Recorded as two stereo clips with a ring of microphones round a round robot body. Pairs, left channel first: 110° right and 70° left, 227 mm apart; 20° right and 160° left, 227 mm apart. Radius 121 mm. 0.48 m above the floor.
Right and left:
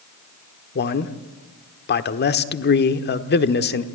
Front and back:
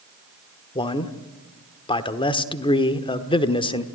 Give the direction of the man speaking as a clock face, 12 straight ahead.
3 o'clock.